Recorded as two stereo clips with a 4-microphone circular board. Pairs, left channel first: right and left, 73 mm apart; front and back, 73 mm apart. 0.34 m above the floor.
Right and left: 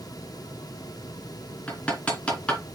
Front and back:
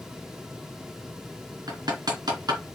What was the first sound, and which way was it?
Hammering, 165° right.